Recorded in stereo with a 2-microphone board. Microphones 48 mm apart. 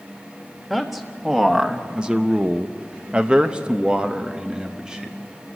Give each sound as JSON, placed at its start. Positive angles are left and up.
{"t": 0.7, "sound": "a man speaking", "side_deg": -10, "distance_m": 1.5}